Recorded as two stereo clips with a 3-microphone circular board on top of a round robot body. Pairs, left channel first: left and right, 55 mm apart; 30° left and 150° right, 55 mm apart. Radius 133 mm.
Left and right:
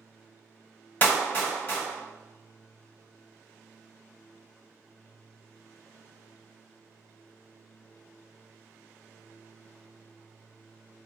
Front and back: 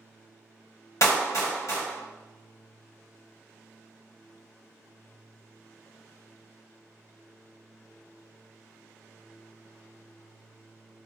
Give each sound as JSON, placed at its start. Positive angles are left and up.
{"t": 1.0, "sound": "a clap", "azimuth_deg": 35, "distance_m": 1.3}